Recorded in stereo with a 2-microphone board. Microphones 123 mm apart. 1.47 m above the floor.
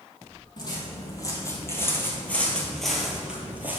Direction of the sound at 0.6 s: 35° left (ahead or behind).